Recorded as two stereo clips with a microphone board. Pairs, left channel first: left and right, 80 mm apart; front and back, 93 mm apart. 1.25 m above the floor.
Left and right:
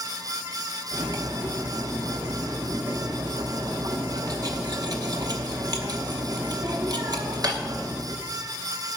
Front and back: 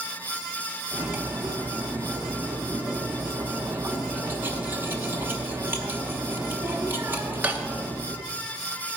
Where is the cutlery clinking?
115° right, 1.1 m.